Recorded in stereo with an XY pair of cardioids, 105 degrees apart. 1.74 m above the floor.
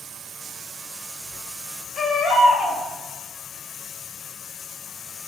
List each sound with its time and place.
2.0 s a baby crying: 40° left, 4.5 m